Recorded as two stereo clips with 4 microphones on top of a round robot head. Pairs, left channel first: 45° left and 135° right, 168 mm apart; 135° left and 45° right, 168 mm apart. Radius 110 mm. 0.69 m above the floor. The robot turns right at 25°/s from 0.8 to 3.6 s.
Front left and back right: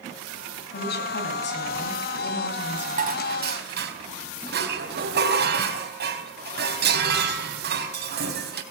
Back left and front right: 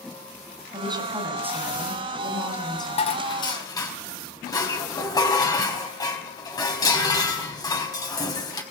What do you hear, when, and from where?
0.7 s a woman speaking: 15° left, 5 m; by 3.1 s 70° left, 5 m
3.0 s dishes clattering: 175° right, 4 m; by 8.6 s 160° right, 4 m